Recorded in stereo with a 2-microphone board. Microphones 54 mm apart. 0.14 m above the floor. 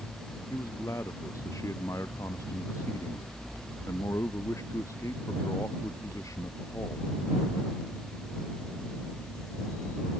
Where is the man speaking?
70° left (ahead or behind).